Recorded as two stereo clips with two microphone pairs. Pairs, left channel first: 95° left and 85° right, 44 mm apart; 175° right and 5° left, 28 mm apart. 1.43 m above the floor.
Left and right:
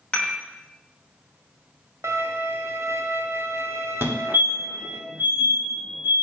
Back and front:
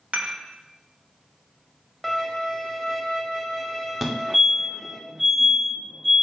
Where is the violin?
85° right, 0.6 m.